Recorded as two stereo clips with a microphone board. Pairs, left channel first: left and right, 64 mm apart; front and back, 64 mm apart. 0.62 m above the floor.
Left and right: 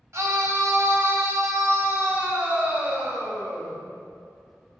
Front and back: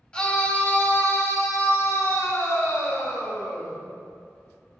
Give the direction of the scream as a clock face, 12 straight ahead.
2 o'clock.